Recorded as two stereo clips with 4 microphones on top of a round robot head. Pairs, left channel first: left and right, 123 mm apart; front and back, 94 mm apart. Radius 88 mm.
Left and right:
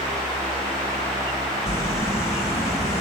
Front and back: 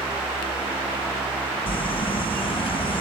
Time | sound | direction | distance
1.7 | crumpling | 15° left | 2 m